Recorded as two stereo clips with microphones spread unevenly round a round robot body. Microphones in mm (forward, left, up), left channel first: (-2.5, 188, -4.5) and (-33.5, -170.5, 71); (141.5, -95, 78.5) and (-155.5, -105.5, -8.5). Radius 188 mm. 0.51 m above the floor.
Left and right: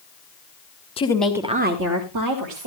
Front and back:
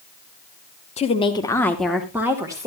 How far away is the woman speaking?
About 1.2 m.